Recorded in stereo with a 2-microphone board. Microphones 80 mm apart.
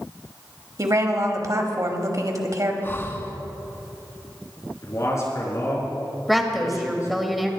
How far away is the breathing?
About 1.2 m.